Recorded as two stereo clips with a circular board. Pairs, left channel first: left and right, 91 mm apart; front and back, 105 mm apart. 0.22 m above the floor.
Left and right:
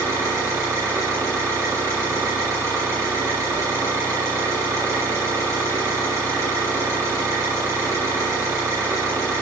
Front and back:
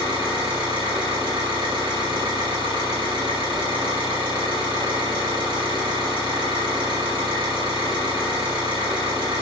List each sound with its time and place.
0.0 s an engine running: 145° right, 3.5 m